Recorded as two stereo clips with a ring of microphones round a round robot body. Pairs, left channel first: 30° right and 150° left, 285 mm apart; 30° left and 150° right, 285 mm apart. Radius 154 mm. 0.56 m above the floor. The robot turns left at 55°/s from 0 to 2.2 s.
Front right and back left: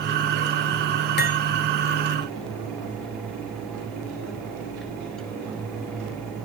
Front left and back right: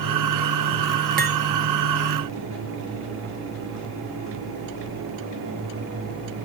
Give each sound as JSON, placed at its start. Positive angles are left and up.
{"t": 1.2, "sound": "cutlery clinking", "azimuth_deg": -90, "distance_m": 0.8}